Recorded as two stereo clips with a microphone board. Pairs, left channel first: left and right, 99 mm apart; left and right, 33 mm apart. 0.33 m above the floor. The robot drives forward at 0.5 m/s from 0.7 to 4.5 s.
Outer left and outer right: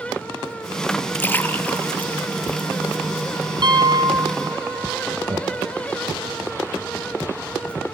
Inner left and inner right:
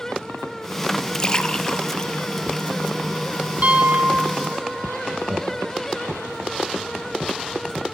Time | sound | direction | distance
1.1 | a splash | 20° left (ahead or behind) | 1.7 m
3.6 | a piano | 50° right (ahead or behind) | 2.5 m
5.1 | laughter | 45° right (ahead or behind) | 5.5 m